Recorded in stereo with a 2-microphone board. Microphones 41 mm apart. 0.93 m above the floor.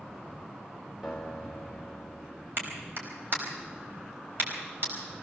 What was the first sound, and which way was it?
A guitar, centre (ahead or behind).